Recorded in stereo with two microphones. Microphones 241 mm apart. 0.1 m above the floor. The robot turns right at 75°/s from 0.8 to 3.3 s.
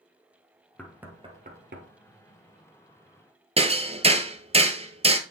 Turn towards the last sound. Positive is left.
turn(degrees=-25)  # may be behind; listen again after turning